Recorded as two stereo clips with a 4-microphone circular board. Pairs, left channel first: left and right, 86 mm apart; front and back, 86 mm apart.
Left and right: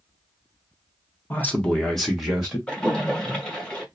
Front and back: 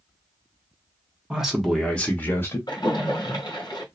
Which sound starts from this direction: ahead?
A splash, at 2.7 s.